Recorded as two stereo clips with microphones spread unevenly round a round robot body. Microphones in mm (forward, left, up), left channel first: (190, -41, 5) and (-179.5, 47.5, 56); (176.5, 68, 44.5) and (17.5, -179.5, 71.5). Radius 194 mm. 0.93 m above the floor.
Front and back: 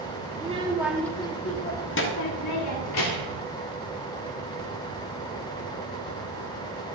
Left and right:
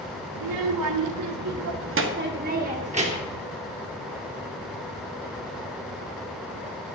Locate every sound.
0.3 s a child speaking: 120° right, 1.2 m; by 3.4 s 50° right, 2 m